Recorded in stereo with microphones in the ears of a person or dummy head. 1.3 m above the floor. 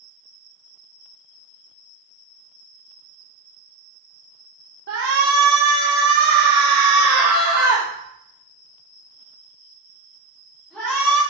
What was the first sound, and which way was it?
A shout, 80° right.